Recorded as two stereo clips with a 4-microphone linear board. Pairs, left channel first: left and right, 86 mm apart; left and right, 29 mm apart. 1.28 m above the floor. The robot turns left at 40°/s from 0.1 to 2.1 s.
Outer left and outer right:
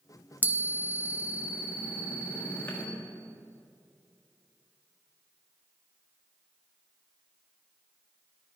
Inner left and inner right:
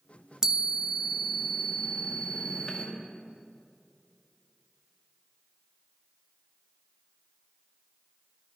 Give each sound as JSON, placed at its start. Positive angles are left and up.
{"t": 0.4, "sound": "a chime", "azimuth_deg": -150, "distance_m": 0.8}